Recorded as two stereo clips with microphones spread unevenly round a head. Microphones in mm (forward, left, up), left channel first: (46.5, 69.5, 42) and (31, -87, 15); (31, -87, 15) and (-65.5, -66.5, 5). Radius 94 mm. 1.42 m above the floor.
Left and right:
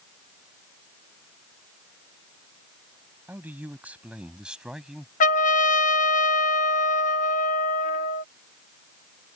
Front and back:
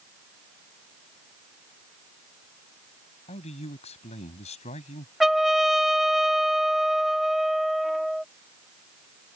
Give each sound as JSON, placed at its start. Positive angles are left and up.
{"t": 3.3, "sound": "a man speaking", "azimuth_deg": -15}
{"t": 5.2, "sound": "a trumpet", "azimuth_deg": 75}